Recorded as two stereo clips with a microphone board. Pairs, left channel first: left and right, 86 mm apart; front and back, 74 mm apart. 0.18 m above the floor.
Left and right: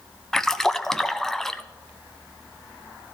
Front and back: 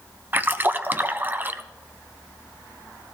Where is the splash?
170° left, 0.5 m.